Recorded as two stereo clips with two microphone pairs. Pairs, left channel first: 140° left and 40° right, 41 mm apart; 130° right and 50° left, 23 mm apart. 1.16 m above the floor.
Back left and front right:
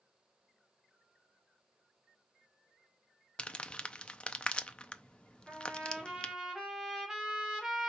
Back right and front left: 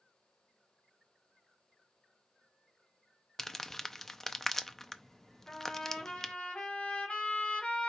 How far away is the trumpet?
About 2 m.